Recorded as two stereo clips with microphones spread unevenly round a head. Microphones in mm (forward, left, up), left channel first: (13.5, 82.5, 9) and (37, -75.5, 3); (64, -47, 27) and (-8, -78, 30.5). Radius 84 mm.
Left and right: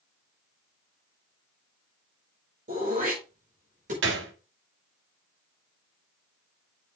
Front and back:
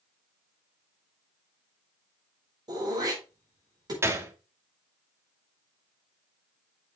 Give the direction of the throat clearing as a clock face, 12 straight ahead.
4 o'clock.